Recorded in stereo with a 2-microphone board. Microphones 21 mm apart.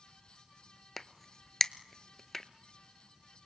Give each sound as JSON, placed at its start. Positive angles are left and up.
{"t": 1.0, "sound": "a crack", "side_deg": 10, "distance_m": 0.7}